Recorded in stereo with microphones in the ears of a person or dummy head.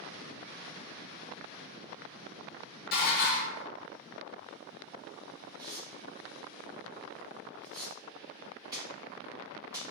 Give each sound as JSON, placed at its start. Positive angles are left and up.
{"t": 2.9, "sound": "dishes clattering", "side_deg": 50, "distance_m": 1.2}
{"t": 5.6, "sound": "tearing paper", "side_deg": -25, "distance_m": 1.8}